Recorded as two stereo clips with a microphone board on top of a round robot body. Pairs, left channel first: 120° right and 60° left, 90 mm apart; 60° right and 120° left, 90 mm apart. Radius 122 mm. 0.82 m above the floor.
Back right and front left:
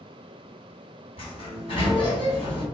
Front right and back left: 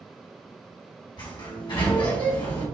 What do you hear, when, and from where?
1.2 s a sliding door: 95° right, 1.7 m